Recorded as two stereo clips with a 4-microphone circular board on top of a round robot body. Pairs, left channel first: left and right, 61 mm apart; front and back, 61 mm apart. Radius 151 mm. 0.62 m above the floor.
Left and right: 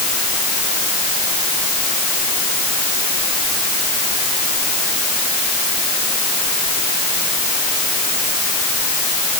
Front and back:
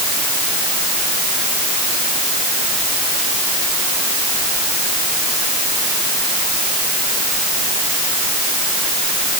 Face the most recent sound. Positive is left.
No sound to turn to.